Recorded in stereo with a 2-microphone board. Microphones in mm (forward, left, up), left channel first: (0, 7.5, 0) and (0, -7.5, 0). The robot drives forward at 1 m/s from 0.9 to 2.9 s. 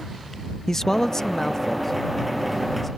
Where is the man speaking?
30° left (ahead or behind); by 2.9 s 5° left (ahead or behind).